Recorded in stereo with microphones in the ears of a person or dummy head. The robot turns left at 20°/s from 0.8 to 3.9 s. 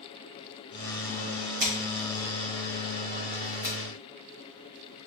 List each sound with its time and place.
1.6 s scissors: 55° right (ahead or behind), 1.5 m; by 5.1 s 10° right (ahead or behind), 1.5 m